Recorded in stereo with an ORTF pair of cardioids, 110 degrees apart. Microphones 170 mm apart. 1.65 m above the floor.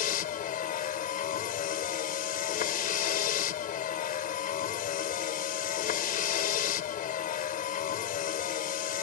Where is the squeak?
I don't hear a squeak.